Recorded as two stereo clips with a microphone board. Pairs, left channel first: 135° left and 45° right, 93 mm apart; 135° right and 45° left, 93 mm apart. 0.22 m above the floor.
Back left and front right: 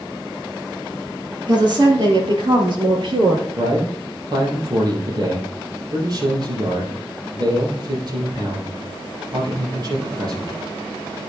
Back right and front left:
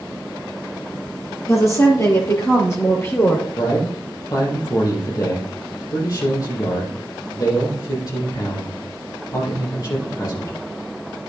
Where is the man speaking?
85° right, 6 m.